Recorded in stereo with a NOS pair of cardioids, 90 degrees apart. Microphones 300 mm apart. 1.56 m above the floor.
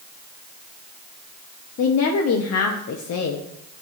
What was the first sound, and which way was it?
A woman speaking, 55° left.